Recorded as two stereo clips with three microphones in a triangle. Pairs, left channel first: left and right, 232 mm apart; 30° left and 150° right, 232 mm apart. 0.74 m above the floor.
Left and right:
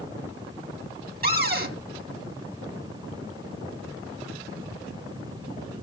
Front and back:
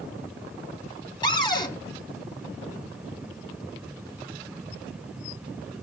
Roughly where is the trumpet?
I don't hear a trumpet.